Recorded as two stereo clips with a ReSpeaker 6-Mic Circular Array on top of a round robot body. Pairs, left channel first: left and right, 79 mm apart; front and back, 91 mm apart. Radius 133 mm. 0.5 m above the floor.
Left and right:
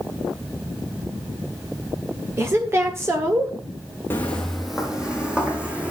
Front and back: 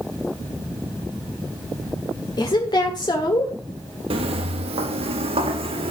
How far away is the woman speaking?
About 1.7 m.